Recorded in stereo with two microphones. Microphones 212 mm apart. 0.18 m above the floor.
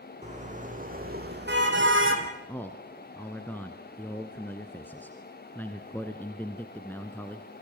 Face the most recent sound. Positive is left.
turn(degrees=10)  # may be behind; listen again after turning